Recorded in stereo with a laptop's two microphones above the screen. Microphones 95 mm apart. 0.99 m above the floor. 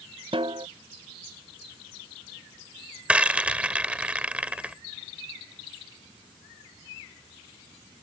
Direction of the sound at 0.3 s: 65° right (ahead or behind).